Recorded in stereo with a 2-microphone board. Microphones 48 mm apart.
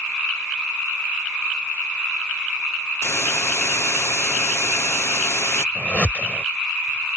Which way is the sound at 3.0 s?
70° left (ahead or behind).